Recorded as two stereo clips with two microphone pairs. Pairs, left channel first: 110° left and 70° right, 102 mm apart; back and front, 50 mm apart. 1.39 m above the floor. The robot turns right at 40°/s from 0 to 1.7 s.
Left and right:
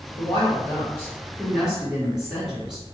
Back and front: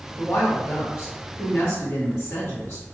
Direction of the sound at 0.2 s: 145° left.